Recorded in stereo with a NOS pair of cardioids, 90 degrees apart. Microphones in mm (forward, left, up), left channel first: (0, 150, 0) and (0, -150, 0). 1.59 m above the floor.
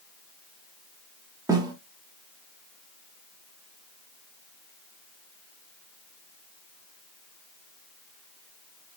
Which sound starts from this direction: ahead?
A snare drum, at 1.5 s.